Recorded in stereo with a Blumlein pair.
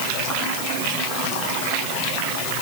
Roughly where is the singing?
I don't hear singing.